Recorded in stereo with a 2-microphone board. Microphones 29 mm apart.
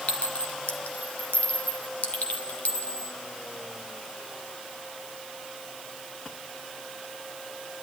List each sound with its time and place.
0.1 s a clink: 60° left (ahead or behind), 1.9 m